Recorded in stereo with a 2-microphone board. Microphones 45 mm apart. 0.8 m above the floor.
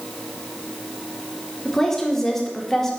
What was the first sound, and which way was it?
A woman speaking, 10° left (ahead or behind).